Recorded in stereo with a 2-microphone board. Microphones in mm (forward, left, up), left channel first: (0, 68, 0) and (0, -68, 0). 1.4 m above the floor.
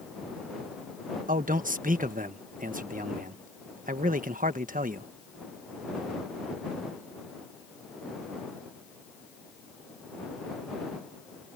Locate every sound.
1.3 s a man speaking: 85° right